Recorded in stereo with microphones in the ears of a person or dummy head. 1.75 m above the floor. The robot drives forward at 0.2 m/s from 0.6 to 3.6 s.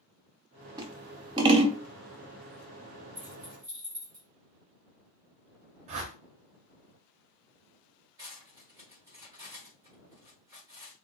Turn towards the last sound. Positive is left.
turn(degrees=-15)  # may be behind; listen again after turning